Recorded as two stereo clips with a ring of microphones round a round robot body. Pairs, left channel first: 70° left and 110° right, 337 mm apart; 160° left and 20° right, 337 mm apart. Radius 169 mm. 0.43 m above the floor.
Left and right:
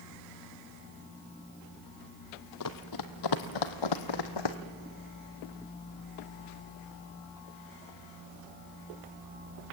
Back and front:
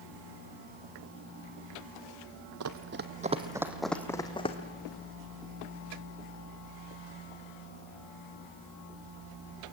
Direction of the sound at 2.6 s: 25° left.